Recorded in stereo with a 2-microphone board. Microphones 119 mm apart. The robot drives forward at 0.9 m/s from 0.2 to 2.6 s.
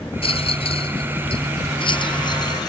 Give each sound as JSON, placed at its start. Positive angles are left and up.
{"t": 0.2, "sound": "a rattle", "side_deg": 50}